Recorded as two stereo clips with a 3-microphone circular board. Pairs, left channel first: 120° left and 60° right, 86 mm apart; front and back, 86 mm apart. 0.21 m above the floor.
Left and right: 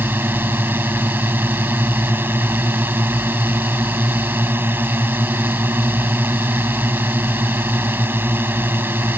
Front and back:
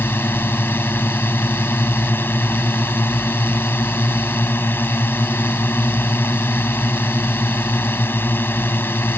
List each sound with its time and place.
0.0 s a drone: 30° right